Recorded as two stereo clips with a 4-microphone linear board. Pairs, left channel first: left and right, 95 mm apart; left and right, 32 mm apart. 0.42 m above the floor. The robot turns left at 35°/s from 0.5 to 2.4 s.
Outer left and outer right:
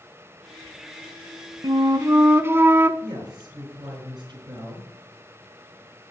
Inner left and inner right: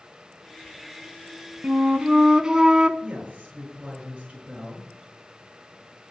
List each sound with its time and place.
1.6 s a flute: 55° right (ahead or behind), 0.6 m; by 2.9 s 25° right (ahead or behind), 0.6 m
3.0 s a woman speaking: 55° right (ahead or behind), 5.5 m